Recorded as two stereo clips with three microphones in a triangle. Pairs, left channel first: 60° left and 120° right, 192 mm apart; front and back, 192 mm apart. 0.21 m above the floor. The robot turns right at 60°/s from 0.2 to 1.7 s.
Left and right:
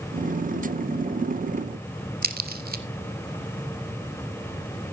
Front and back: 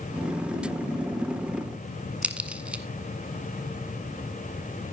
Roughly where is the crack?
Right.